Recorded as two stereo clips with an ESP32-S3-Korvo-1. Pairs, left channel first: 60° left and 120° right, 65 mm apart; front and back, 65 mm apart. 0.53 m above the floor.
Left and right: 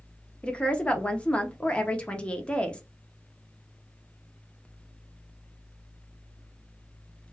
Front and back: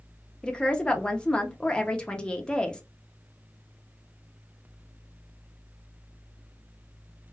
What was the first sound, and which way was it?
A woman speaking, 40° left.